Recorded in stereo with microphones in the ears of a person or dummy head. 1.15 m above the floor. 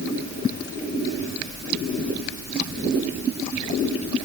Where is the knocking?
I don't hear knocking.